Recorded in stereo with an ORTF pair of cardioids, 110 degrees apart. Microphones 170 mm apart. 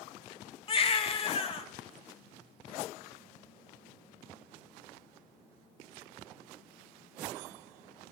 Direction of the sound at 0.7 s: 30° left.